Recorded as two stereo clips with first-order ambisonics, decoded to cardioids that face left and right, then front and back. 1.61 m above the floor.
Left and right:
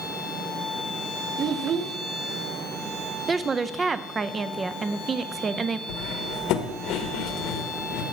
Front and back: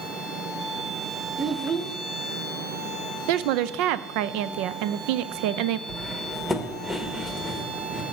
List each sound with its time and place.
1.4 s a child speaking: 115° right, 0.5 m
3.3 s a woman speaking: 165° right, 0.5 m
5.9 s cutlery clinking: 85° left, 1.2 m